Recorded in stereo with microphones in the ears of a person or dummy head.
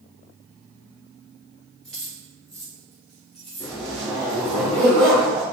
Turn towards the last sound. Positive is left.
turn(degrees=-35)  # may be behind; listen again after turning